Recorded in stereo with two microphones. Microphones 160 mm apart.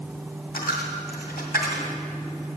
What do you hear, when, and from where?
0.5 s a dropped coin: 75° left (ahead or behind), 2.0 m